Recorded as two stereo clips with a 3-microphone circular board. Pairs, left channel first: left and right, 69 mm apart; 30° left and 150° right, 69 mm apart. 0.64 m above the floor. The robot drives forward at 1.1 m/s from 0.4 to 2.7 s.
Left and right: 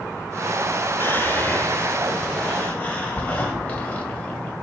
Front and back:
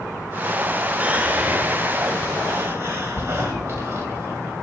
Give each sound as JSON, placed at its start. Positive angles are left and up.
{"t": 1.0, "sound": "whispering", "azimuth_deg": 140, "distance_m": 2.0}